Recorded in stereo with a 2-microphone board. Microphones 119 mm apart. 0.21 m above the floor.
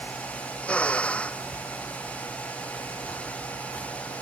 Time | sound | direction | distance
0.6 | a drill | 10° left (ahead or behind) | ?